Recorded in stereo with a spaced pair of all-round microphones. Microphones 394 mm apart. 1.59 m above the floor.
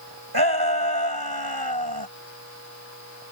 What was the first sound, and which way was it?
A shout, 70° right (ahead or behind).